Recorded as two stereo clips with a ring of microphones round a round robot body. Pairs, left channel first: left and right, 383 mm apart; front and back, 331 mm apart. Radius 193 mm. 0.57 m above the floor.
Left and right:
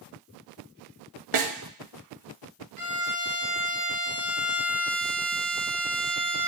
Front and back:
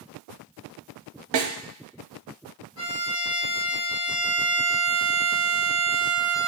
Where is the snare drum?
140° right, 0.6 m.